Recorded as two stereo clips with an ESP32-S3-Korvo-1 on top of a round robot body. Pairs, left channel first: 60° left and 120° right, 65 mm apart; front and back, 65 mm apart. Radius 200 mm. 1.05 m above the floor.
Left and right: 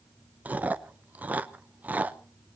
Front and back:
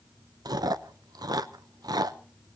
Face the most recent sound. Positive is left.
turn(degrees=175)